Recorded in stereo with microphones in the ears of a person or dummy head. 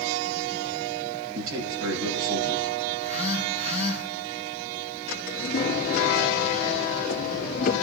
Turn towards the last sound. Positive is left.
turn(degrees=60)  # may be behind; listen again after turning